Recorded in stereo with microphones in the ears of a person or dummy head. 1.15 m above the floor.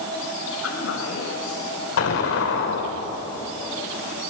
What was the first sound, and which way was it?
A woman speaking, 90° left.